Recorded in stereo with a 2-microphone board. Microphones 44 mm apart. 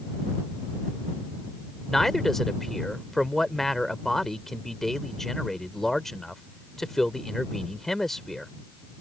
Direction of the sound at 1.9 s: 5° left (ahead or behind).